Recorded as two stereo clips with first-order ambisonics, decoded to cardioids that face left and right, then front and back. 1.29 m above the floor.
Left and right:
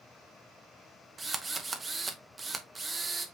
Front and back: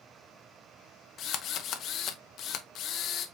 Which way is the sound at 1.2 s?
20° right.